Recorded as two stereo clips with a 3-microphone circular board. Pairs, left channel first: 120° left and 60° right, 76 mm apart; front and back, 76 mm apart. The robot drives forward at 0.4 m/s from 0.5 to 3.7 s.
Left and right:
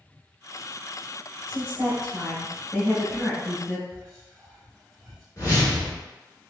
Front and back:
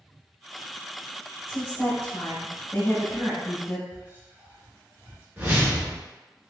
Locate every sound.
1.5 s a woman speaking: 35° left, 1.8 m; by 3.8 s 90° left, 1.6 m
3.9 s whispering: 160° right, 1.5 m
5.4 s a whoosh: 130° left, 1.4 m